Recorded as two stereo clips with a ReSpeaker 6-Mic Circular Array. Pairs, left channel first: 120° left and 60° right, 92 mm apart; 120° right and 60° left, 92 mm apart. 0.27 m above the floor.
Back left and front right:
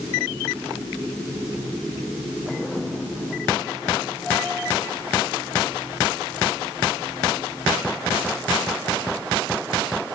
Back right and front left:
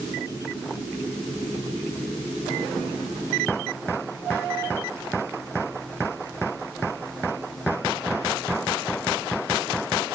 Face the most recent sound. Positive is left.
No sound to turn to.